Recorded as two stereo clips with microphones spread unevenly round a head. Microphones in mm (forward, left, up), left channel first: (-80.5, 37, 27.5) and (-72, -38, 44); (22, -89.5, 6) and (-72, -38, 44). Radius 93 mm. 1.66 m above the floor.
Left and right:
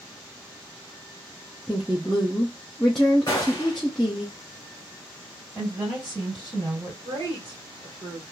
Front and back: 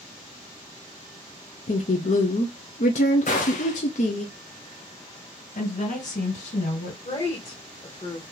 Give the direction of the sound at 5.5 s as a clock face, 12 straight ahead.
12 o'clock.